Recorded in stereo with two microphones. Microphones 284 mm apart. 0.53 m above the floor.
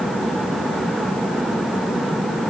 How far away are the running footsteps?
I don't hear running footsteps.